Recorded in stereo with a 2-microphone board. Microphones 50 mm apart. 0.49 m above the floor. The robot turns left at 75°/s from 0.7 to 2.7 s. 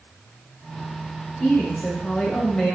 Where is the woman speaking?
20° left (ahead or behind), 0.7 m; by 2.8 s 10° left (ahead or behind), 0.7 m.